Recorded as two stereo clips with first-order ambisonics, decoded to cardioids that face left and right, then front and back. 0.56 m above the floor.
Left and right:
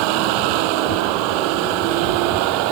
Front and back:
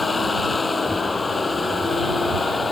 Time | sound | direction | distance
0.0 | a vehicle | 75° right | ?